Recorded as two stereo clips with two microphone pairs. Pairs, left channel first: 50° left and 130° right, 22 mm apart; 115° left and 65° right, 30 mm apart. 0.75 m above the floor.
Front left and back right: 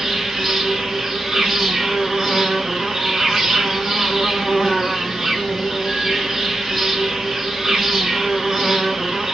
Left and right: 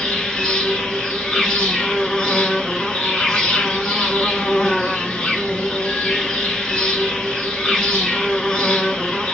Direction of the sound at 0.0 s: 175° left.